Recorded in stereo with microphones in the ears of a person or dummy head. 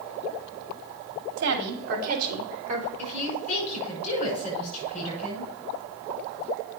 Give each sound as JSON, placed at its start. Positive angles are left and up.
{"t": 1.4, "sound": "a woman speaking", "side_deg": -65, "distance_m": 2.5}
{"t": 3.0, "sound": "a woman speaking", "side_deg": 40, "distance_m": 7.0}